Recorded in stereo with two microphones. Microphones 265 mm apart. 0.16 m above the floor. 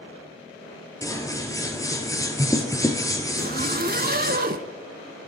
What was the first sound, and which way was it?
Scissors, 10° left (ahead or behind).